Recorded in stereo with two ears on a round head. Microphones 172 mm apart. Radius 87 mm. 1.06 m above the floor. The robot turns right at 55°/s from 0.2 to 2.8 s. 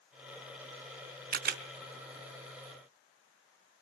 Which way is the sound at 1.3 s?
50° right (ahead or behind).